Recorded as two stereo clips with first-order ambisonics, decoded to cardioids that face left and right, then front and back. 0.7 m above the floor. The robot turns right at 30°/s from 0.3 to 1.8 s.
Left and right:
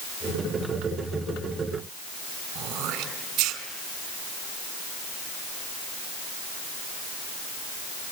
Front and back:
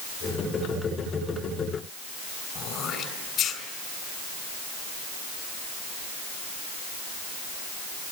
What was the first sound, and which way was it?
Throat clearing, 55° right.